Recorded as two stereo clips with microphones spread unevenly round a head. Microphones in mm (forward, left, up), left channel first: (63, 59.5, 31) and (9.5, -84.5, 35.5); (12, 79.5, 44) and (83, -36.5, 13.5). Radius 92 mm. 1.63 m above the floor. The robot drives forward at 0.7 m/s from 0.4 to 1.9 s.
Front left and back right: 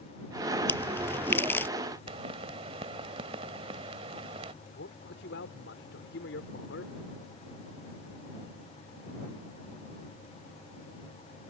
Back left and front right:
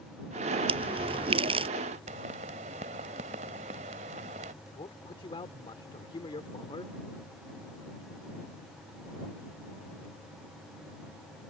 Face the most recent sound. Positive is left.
turn(degrees=70)